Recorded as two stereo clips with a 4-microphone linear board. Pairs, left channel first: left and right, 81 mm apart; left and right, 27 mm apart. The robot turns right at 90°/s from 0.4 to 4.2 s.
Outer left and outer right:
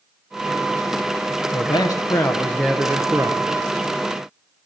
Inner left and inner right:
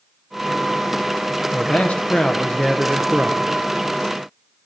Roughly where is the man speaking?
Left.